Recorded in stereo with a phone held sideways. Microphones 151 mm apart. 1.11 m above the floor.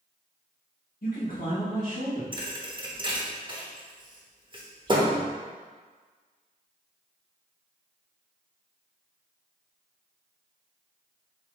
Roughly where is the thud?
Right.